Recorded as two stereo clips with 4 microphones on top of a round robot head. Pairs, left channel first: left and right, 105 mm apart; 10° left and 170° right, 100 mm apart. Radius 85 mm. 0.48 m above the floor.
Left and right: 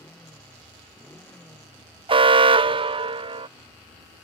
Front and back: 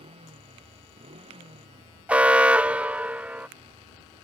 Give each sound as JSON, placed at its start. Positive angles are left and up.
{"t": 0.0, "sound": "a motorcycle", "azimuth_deg": 170}
{"t": 2.1, "sound": "an alarm", "azimuth_deg": -95}